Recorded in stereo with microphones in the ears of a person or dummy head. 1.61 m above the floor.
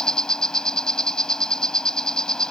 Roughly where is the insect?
Centre.